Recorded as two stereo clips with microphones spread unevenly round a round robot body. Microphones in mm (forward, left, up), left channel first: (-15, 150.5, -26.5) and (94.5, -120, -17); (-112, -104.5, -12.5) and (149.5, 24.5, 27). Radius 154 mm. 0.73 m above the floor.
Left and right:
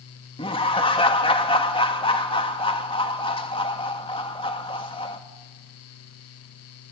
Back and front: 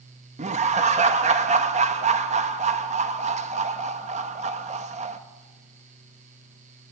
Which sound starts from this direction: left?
Laughter, at 0.4 s.